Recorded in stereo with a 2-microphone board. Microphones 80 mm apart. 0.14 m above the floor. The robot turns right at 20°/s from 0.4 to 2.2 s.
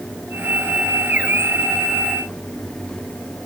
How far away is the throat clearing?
I don't hear throat clearing.